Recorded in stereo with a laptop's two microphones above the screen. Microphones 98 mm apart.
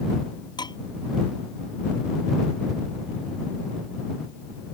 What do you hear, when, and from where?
0.6 s dishes clattering: 50° left (ahead or behind)